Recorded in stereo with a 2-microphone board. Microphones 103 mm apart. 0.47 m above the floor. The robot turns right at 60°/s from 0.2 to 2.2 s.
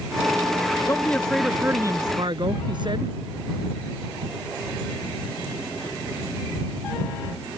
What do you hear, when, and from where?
0.9 s a man speaking: 150° left; by 3.1 s 130° right